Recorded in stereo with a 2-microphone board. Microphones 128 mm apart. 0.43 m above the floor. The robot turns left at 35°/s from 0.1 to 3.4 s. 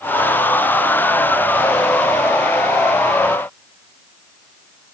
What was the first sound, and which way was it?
Only background noise.